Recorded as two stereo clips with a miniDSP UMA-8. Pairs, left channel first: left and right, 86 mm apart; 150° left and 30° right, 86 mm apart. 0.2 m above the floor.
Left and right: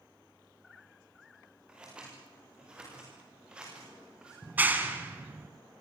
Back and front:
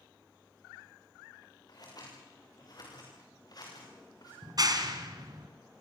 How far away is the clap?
About 1.9 m.